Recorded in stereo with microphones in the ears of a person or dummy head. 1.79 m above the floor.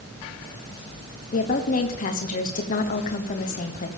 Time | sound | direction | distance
1.3 | a woman speaking | 40° left (ahead or behind) | 1.1 m